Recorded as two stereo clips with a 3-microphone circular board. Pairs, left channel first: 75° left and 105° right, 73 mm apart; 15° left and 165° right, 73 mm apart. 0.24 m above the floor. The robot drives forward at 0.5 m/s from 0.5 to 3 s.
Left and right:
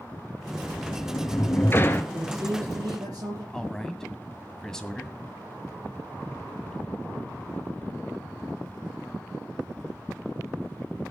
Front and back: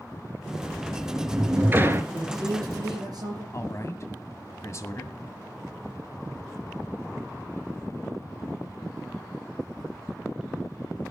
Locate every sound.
0.6 s a sliding door: 110° left, 1.0 m; by 2.0 s 140° left, 1.4 m
2.1 s a man speaking: 135° right, 8 m
3.5 s a man speaking: 5° right, 2 m